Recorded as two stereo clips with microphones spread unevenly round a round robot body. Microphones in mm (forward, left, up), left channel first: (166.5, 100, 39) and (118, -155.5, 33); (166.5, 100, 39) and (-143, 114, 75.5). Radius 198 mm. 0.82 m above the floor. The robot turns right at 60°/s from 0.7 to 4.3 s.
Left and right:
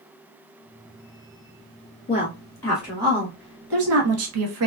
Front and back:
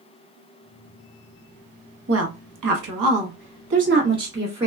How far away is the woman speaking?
About 1.3 m.